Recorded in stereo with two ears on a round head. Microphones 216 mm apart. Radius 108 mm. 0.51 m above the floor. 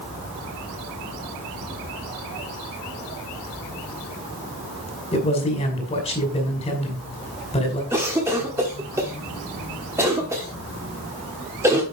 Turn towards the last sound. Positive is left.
turn(degrees=-10)  # may be behind; listen again after turning